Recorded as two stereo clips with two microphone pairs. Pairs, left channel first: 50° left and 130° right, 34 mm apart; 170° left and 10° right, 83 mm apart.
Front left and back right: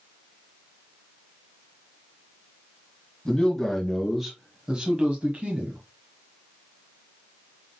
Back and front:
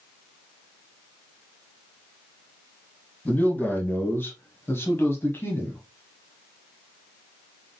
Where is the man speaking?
105° left, 1.5 m; by 5.8 s 135° right, 1.5 m.